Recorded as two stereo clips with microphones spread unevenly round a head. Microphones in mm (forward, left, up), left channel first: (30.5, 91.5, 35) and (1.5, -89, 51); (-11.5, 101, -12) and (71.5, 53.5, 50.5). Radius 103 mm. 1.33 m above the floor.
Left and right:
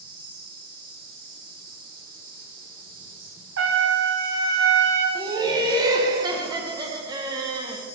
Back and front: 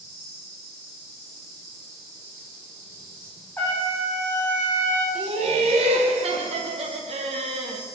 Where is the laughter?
30° right, 1.0 m.